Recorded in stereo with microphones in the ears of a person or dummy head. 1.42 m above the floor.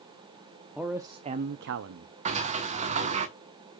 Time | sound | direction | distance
0.8 | a man speaking | centre (ahead or behind) | 0.7 m
2.2 | a sliding door | 35° right (ahead or behind) | 0.9 m